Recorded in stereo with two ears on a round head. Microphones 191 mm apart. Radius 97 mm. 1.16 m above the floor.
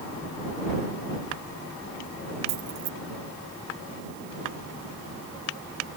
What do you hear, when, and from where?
2.5 s keys jangling: 65° right (ahead or behind)